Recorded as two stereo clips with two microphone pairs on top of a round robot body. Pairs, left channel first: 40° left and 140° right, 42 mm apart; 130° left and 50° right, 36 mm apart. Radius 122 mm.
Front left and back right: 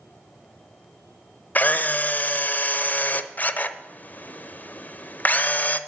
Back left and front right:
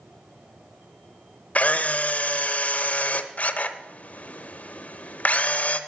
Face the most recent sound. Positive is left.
turn(degrees=80)